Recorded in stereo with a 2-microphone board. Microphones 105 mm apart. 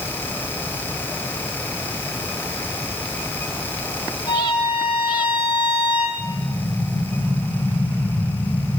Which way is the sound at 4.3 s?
40° left (ahead or behind).